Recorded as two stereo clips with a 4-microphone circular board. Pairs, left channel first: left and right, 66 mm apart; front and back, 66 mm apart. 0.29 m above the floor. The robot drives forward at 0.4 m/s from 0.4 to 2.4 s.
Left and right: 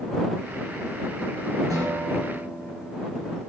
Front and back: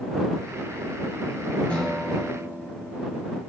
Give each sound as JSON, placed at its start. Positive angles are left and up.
{"t": 1.7, "sound": "a guitar", "azimuth_deg": -70, "distance_m": 7.0}